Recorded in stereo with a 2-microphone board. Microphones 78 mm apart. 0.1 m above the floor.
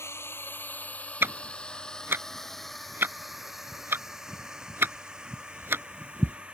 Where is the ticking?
30° right (ahead or behind).